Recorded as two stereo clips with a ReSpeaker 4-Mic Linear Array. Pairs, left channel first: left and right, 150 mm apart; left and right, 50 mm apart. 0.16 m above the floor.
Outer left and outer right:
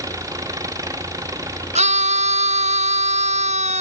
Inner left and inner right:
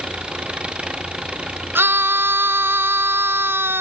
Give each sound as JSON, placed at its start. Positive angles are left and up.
{"t": 0.0, "sound": "an engine running", "side_deg": -20}
{"t": 1.8, "sound": "a scream", "side_deg": -50}